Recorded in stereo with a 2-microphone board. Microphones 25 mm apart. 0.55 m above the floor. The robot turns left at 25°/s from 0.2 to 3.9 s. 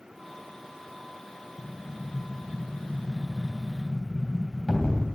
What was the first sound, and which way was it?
An explosion, 135° left.